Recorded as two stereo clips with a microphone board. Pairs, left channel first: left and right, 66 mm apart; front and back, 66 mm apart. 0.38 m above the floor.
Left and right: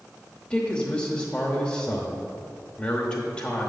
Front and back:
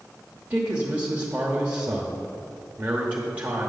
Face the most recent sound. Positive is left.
turn(degrees=140)